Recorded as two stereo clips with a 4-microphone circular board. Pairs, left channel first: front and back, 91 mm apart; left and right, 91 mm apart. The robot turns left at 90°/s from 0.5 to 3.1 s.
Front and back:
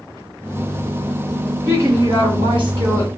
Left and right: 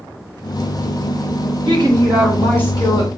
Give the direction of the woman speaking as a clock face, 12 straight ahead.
4 o'clock.